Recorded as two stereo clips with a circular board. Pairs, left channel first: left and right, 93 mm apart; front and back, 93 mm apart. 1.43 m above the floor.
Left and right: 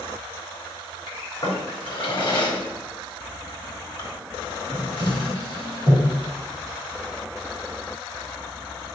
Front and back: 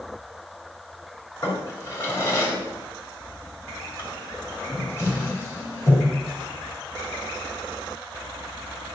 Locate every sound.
1.4 s a drawer: 60° left, 3.5 m